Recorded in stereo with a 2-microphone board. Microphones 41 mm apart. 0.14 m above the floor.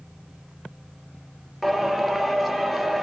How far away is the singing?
About 2 m.